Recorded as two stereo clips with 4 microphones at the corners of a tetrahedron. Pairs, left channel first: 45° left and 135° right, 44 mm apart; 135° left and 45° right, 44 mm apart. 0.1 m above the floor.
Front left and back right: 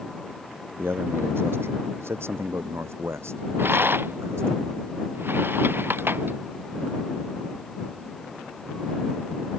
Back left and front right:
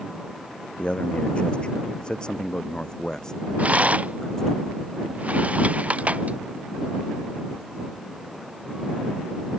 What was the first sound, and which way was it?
A man speaking, 165° right.